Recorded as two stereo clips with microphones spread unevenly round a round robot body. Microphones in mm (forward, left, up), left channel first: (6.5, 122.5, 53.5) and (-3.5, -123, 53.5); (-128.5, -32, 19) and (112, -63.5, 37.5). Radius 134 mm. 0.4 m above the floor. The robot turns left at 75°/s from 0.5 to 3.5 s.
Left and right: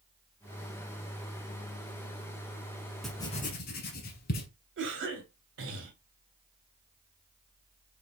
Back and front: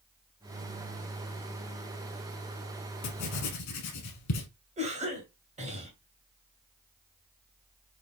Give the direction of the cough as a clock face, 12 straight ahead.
2 o'clock.